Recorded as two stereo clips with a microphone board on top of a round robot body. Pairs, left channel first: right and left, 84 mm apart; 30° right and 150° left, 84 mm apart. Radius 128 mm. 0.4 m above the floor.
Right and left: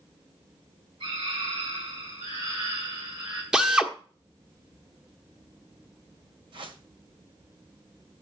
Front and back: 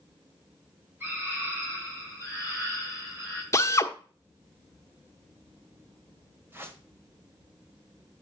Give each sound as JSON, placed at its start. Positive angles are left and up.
{"t": 1.0, "sound": "a scream", "azimuth_deg": 85, "distance_m": 5.0}
{"t": 3.5, "sound": "a drill", "azimuth_deg": 15, "distance_m": 1.3}
{"t": 6.5, "sound": "a whoosh", "azimuth_deg": 90, "distance_m": 1.8}